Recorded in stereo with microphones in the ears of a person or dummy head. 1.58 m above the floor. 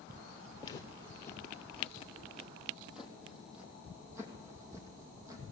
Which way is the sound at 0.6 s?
25° left (ahead or behind).